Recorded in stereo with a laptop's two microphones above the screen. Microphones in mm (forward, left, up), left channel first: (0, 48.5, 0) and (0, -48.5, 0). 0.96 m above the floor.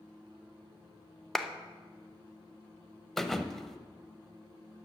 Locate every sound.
1.4 s a clap: centre (ahead or behind), 0.8 m
3.2 s a thud: 5° left (ahead or behind), 0.8 m